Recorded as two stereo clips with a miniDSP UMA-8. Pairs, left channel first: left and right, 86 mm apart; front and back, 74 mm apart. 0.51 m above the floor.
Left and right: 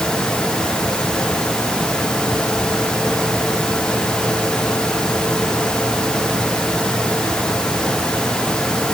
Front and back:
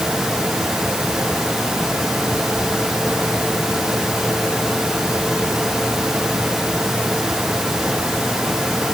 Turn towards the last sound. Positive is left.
No sound to turn to.